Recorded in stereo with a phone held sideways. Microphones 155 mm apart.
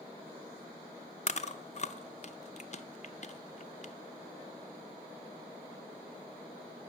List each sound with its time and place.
1.3 s chewing: 50° left (ahead or behind), 0.6 m